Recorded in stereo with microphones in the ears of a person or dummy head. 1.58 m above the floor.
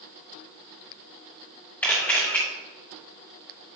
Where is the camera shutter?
15° left (ahead or behind), 2 m.